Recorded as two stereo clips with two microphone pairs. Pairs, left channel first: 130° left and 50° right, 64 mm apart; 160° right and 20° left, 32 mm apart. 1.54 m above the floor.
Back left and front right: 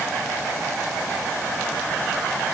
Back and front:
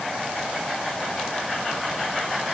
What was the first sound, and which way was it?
Only background noise.